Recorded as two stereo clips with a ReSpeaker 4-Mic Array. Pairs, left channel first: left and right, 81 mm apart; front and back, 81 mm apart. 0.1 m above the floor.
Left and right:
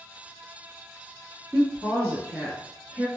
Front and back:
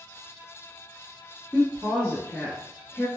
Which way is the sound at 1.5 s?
50° right.